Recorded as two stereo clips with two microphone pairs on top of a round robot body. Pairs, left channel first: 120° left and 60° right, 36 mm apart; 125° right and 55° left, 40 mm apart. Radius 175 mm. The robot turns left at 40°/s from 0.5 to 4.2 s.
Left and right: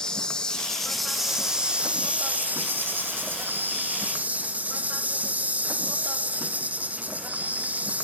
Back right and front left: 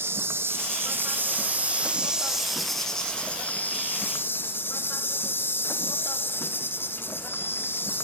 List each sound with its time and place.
0.0 s an insect: 50° left, 2.5 m; by 8.1 s 100° right, 2.5 m